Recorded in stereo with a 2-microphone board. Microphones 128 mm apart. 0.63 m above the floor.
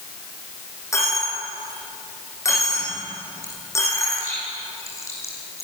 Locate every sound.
0.9 s a dropped coin: 20° left (ahead or behind), 9 m